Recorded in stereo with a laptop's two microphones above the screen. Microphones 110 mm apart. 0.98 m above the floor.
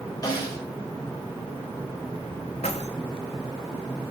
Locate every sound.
0.2 s a snare drum: 40° left (ahead or behind), 4.5 m
2.6 s keys jangling: 85° left, 1.4 m